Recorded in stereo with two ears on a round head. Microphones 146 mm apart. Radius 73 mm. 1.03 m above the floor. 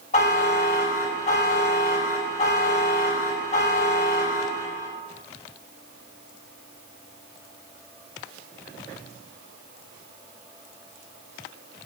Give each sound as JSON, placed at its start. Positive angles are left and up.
{"t": 0.1, "sound": "a buzzer", "side_deg": 45, "distance_m": 6.0}